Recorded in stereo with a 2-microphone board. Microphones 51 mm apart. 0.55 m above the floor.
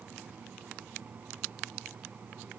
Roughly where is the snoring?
No snoring in this recording.